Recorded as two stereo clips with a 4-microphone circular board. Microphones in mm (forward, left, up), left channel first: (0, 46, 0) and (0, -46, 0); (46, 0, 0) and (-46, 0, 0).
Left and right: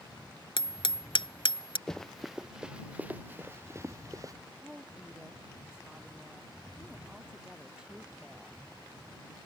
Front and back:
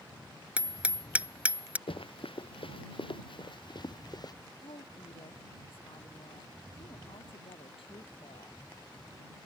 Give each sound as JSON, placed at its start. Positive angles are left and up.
{"t": 0.6, "sound": "hammering", "azimuth_deg": 105}
{"t": 1.9, "sound": "running footsteps", "azimuth_deg": 5}
{"t": 4.6, "sound": "a woman speaking", "azimuth_deg": -10}